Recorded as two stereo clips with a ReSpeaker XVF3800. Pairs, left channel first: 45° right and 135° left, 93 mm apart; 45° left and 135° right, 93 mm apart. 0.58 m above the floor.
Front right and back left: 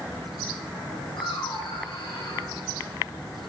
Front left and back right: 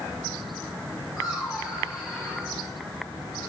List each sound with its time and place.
1.2 s laughter: 45° right, 5 m; by 2.5 s 30° right, 4.5 m